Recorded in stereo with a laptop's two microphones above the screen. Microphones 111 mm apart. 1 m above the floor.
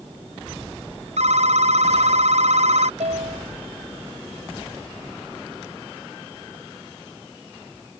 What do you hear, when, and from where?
1.2 s a phone ringing: 80° right
3.0 s a piano: 85° right